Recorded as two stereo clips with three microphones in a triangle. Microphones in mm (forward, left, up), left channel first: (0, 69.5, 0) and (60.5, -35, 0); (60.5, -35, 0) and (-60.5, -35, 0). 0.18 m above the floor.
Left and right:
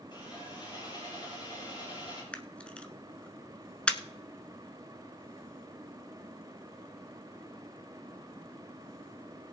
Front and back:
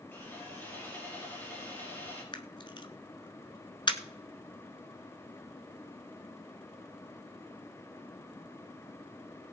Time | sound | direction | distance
0.1 | sawing | 70° left | 5.5 m
2.3 | a camera shutter | 40° left | 1.0 m